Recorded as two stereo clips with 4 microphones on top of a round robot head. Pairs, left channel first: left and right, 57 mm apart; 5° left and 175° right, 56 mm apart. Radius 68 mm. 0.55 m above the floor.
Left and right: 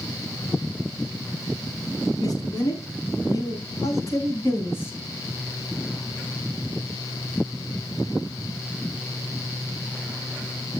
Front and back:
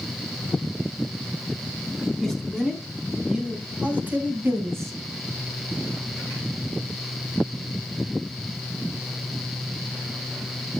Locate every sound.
2.2 s a man speaking: 95° left, 5 m; by 4.9 s 150° left, 3.5 m